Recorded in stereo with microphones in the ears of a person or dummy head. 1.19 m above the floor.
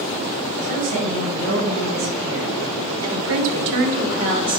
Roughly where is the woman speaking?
Right.